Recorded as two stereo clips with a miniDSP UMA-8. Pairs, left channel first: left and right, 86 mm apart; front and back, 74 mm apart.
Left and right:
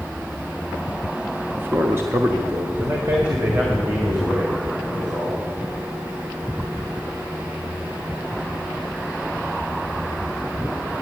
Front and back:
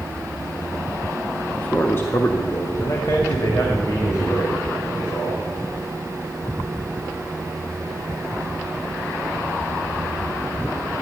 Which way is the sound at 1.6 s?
60° right.